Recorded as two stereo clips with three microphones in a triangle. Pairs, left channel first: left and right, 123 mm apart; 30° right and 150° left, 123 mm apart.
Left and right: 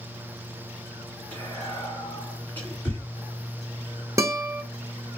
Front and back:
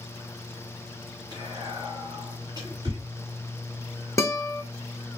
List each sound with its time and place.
1.3 s whispering: 150° left, 1.9 m
4.2 s a guitar: 65° right, 0.6 m